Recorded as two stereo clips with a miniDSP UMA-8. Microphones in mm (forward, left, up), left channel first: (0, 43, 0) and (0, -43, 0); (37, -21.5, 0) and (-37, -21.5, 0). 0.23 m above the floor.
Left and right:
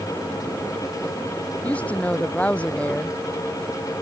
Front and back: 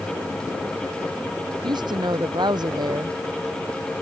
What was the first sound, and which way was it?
A woman speaking, 165° left.